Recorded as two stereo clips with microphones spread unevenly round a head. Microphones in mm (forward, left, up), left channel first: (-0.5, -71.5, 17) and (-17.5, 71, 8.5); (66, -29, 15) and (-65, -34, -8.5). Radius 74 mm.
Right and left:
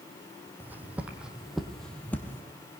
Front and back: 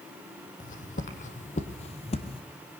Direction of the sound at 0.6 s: 20° left.